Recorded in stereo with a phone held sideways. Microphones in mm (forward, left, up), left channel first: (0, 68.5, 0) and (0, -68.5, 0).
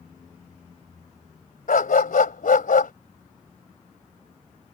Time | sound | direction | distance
1.7 | a dog barking | 80° left | ?